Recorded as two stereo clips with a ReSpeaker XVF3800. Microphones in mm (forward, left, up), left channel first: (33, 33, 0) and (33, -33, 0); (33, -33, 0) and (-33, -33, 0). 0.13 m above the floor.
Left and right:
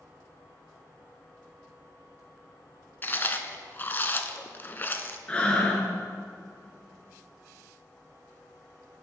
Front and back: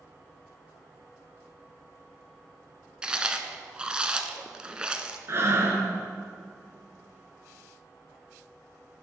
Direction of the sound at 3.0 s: 115° left.